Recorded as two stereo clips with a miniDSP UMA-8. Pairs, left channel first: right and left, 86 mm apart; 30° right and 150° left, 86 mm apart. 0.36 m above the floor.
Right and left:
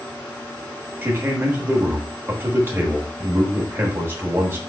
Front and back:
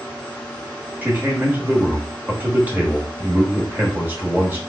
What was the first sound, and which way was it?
A man speaking, 105° left.